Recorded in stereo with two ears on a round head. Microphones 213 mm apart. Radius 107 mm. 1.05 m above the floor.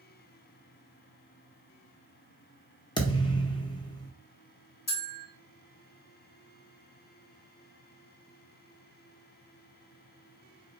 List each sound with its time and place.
3.0 s a thud: 20° left (ahead or behind), 0.8 m
4.9 s a bell: 40° left (ahead or behind), 1.3 m